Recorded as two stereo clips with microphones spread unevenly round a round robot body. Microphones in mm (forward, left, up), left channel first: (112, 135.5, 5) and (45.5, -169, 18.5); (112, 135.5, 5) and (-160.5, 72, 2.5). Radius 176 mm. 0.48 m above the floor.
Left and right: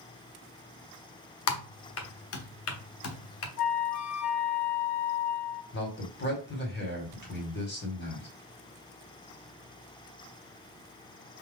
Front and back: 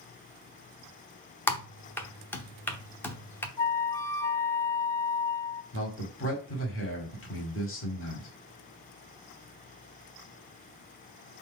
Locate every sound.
1.5 s typing on a keyboard: 95° left, 0.8 m
3.6 s a flute: 85° left, 1.8 m
5.7 s a man speaking: 35° left, 1.7 m